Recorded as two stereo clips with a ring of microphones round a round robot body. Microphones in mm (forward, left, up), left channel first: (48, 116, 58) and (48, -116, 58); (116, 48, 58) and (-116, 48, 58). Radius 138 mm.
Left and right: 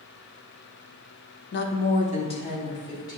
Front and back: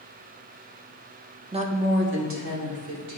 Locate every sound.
1.5 s a woman speaking: 115° left, 0.9 m; by 3.2 s 165° left, 2.5 m